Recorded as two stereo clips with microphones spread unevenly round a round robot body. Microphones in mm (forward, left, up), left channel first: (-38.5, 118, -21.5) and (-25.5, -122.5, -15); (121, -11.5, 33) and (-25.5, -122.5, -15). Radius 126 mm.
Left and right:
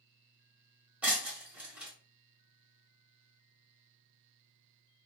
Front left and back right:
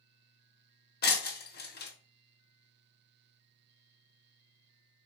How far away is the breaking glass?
About 0.9 m.